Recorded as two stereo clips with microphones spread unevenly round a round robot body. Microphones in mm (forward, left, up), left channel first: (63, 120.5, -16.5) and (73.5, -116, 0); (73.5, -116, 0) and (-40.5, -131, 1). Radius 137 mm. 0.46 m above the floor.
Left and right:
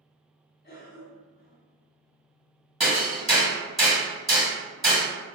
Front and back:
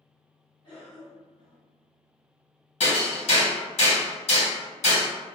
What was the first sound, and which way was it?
A cough, 55° left.